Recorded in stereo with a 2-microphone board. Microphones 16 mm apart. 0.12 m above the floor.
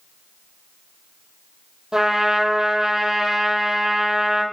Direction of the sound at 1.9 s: 55° right (ahead or behind).